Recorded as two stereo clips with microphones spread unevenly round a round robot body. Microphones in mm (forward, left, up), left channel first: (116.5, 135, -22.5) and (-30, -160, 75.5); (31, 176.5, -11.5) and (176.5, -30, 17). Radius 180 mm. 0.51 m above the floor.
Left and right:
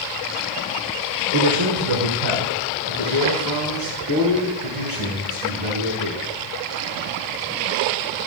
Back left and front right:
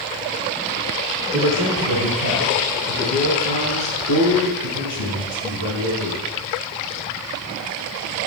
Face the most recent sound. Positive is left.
turn(degrees=-85)